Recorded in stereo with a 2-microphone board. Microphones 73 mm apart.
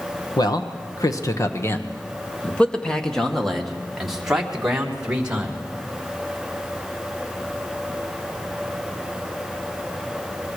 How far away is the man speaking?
About 1.6 m.